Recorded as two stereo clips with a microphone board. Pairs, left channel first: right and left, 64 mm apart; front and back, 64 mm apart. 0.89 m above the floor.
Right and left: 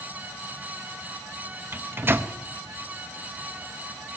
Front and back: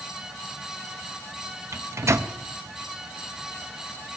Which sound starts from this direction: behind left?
A microwave, at 1.7 s.